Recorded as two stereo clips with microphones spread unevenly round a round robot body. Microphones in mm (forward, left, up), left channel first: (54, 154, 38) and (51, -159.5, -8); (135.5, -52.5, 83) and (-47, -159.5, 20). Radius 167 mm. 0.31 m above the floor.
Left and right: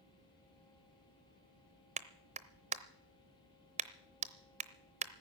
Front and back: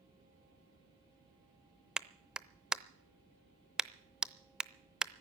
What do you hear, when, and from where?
2.0 s a clap: 100° right, 0.7 m